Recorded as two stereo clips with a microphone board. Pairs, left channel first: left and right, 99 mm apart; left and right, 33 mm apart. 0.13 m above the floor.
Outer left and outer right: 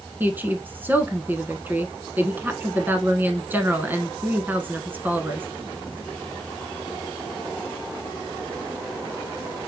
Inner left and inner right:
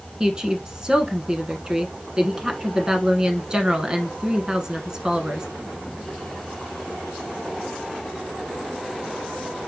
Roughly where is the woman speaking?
Centre.